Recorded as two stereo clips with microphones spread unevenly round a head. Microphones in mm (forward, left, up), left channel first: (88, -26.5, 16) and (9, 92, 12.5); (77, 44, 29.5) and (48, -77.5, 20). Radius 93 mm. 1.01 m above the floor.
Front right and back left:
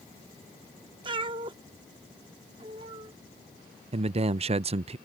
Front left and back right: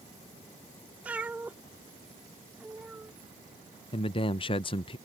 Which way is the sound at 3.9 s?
110° left.